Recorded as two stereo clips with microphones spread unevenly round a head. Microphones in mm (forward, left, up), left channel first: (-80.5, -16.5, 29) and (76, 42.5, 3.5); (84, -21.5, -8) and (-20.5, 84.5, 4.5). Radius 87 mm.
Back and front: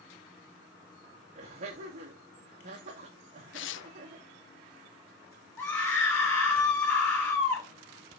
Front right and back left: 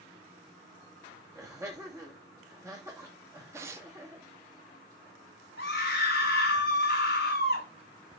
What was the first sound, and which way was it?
Laughter, 65° left.